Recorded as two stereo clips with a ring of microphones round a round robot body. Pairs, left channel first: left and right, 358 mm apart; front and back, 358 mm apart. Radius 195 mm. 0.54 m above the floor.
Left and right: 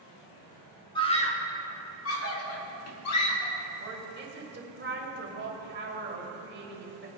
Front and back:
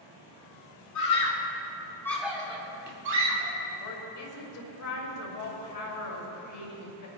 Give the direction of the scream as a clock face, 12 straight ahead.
11 o'clock.